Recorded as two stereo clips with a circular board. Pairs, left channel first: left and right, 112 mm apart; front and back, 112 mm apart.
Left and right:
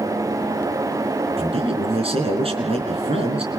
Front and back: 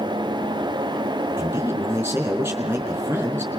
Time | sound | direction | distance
1.4 | a man speaking | 110° right | 4.5 m